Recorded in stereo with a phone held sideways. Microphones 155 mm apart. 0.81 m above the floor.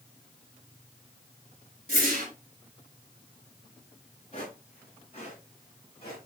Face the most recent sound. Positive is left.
turn(degrees=35)  # may be behind; listen again after turning